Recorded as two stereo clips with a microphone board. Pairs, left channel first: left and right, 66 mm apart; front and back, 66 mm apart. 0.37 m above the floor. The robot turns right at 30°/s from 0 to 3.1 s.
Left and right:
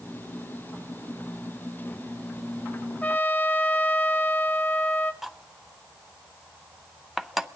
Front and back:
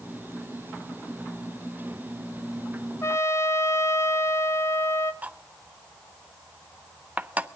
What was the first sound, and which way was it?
A trumpet, 25° left.